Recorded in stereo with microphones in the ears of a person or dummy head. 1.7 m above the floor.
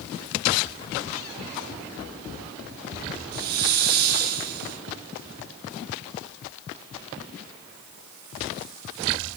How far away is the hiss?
About 0.6 m.